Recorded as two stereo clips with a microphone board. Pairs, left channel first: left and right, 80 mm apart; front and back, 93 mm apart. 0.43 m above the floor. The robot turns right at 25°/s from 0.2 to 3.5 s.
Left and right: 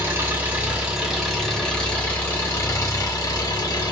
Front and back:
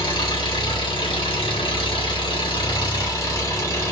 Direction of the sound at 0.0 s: 30° right.